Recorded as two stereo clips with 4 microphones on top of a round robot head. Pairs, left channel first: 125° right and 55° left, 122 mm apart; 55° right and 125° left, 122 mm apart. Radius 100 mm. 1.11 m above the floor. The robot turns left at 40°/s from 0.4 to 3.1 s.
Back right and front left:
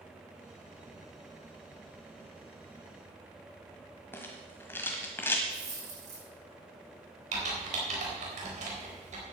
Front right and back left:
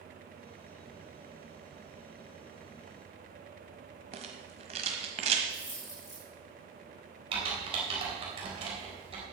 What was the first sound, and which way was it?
A rattle, 160° left.